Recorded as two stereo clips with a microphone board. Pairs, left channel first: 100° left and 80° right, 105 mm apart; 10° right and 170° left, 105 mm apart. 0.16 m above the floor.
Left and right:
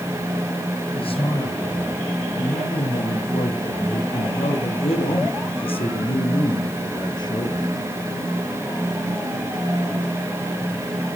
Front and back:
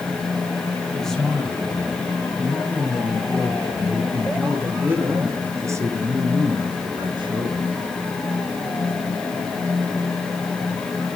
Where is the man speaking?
75° left, 5 m; by 7.7 s 145° left, 2.5 m.